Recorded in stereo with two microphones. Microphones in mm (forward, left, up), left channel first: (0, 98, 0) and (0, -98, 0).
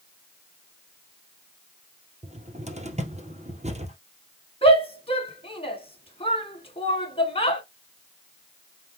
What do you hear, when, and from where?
2.2 s a cupboard door: 35° right (ahead or behind), 1.9 m
4.6 s a shout: 30° left (ahead or behind), 1.9 m